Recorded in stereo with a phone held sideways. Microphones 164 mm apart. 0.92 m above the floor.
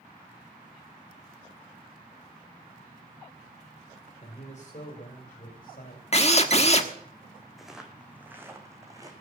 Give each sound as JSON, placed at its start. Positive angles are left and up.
{"t": 4.2, "sound": "a man speaking", "side_deg": 45, "distance_m": 3.5}
{"t": 6.1, "sound": "a drill", "side_deg": 45, "distance_m": 1.4}
{"t": 7.6, "sound": "footsteps", "side_deg": 0, "distance_m": 2.0}